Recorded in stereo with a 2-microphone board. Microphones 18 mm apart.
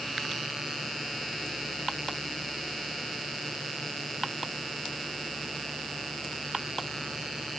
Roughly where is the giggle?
I don't hear a giggle.